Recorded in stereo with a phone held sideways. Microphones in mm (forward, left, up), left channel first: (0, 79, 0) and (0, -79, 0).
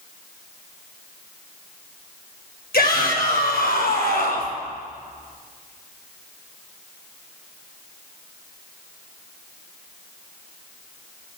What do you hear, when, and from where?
2.7 s a shout: 80° left, 7.5 m